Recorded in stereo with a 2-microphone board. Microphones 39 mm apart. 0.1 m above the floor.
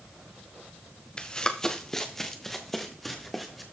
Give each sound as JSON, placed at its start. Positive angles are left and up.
{"t": 1.2, "sound": "running footsteps", "side_deg": 25, "distance_m": 1.2}